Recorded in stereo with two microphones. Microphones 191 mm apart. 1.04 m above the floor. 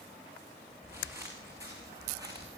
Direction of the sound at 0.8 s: 10° right (ahead or behind).